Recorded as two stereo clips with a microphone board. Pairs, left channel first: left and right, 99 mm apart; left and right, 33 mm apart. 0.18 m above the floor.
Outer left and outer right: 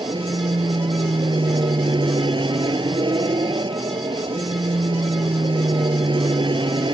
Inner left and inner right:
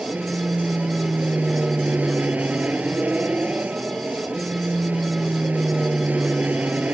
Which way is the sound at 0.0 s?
50° right (ahead or behind).